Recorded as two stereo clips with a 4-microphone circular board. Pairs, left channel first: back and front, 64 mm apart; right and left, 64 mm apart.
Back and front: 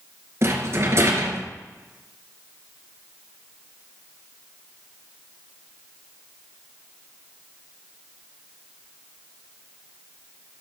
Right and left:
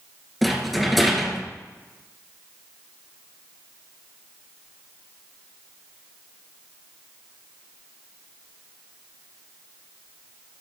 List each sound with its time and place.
0.4 s a rattle: straight ahead, 2 m